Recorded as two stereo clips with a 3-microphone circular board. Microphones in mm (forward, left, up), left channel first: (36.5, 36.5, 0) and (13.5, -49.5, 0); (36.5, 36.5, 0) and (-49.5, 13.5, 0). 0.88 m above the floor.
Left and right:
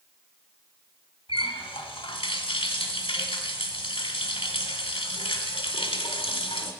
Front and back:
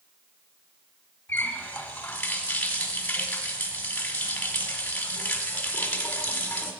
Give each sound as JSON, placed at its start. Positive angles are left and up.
{"t": 1.3, "sound": "a running tap", "azimuth_deg": 90, "distance_m": 1.5}